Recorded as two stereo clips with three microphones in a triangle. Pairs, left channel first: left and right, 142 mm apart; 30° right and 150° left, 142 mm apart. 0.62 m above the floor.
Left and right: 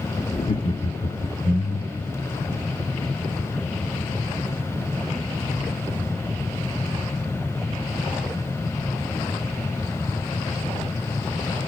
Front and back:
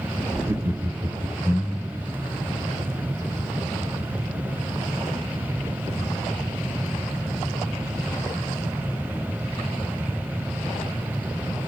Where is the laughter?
85° left, 0.9 m; by 2.1 s 75° left, 2.5 m.